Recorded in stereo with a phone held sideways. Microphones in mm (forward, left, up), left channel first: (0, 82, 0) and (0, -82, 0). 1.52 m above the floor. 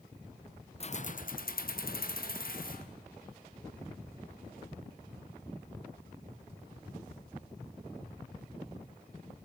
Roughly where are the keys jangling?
Left.